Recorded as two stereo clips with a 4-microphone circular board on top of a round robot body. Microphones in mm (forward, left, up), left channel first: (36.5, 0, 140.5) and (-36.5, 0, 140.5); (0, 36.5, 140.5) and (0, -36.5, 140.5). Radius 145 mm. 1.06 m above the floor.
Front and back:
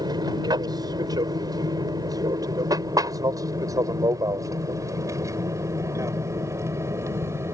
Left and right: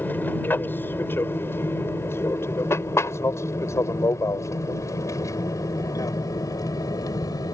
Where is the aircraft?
155° left; by 7.5 s 125° left.